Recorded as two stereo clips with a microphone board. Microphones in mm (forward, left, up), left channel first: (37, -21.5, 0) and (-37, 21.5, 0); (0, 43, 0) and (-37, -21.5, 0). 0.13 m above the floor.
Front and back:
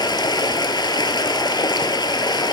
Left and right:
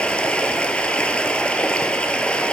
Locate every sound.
0.0 s running water: 15° right, 1.0 m